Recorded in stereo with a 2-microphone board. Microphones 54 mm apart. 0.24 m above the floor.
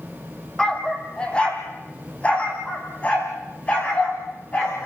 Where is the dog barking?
15° left (ahead or behind), 1.9 m; by 4.9 s 30° left (ahead or behind), 6 m.